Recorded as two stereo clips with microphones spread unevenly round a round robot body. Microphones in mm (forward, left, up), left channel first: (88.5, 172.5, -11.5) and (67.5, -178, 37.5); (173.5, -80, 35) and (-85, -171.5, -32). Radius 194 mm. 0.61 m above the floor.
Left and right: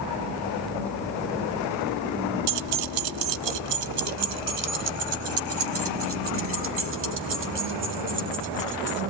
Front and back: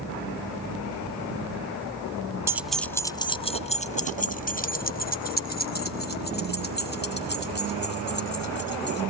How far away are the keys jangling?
About 0.6 m.